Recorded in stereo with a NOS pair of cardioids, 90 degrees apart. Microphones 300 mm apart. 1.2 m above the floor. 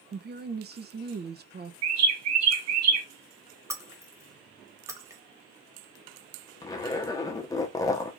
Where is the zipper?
15° left, 0.9 m.